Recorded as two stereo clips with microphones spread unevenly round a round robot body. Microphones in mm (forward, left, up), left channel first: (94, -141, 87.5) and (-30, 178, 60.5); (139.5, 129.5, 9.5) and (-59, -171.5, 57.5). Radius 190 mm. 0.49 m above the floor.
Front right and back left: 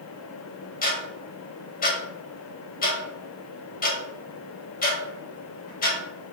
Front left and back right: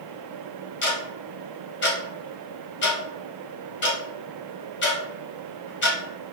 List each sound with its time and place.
0.8 s ticking: straight ahead, 1.4 m